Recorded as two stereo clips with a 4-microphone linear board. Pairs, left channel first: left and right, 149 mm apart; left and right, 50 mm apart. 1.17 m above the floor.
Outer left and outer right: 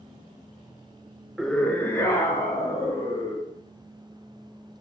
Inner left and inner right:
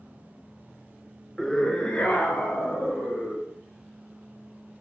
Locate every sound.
1.4 s a scream: 5° right (ahead or behind), 0.6 m; by 3.5 s 20° left (ahead or behind), 3.5 m